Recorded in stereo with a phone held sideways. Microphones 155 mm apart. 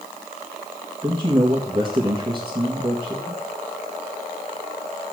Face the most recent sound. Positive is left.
turn(degrees=-30)  # may be behind; listen again after turning